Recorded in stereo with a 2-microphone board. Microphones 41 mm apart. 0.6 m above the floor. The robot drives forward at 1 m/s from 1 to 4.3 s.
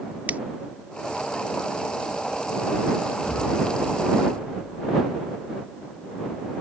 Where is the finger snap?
45° right (ahead or behind).